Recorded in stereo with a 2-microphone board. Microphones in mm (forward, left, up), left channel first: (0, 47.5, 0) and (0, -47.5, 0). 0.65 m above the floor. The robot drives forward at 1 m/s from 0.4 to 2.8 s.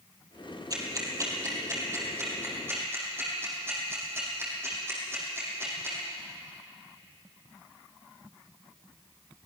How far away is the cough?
I don't hear a cough.